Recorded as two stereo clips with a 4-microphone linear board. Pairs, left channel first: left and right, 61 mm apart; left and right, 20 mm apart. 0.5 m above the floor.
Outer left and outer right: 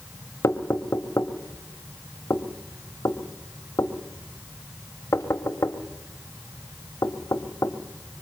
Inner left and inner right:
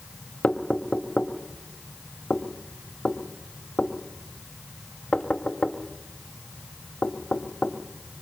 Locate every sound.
0.4 s knocking: 55° left (ahead or behind), 1.6 m